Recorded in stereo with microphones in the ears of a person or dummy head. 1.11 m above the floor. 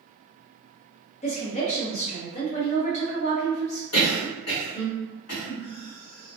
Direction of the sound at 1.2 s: 35° left (ahead or behind).